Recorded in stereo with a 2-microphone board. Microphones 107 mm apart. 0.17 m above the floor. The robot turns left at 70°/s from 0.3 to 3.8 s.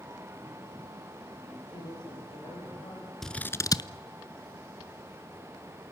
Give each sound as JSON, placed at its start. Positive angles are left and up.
{"t": 1.7, "sound": "a woman speaking", "azimuth_deg": 115, "distance_m": 9.5}
{"t": 3.2, "sound": "scissors", "side_deg": 5, "distance_m": 0.6}